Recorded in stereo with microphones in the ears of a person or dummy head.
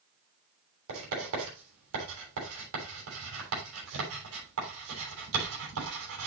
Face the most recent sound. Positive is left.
turn(degrees=-85)